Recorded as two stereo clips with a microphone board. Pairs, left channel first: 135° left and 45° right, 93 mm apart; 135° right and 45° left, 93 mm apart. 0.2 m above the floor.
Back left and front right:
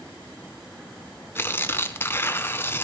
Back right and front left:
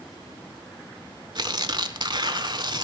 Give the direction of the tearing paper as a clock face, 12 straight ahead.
10 o'clock.